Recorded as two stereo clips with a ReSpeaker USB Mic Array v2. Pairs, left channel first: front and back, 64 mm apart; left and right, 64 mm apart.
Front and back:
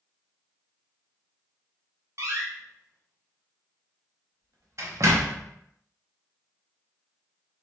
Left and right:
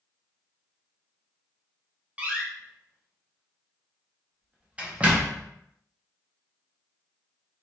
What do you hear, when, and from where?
2.2 s a door slam: 160° right, 0.5 m